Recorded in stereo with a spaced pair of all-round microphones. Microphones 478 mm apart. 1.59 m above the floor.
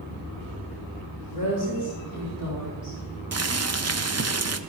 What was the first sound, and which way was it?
A woman speaking, 75° right (ahead or behind).